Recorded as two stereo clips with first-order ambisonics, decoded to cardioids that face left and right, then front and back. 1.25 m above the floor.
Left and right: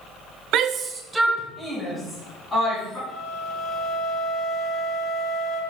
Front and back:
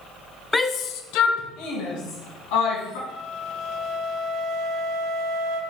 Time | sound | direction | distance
0.5 | a shout | 80° right | 0.6 m
3.1 | a flute | 15° right | 1.7 m